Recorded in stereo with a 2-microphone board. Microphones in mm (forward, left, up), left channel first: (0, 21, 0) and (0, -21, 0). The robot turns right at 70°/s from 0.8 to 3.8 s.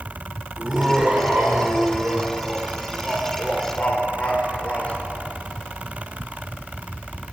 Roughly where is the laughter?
Behind.